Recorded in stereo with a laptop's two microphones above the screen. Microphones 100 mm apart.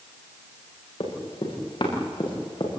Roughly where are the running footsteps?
Left.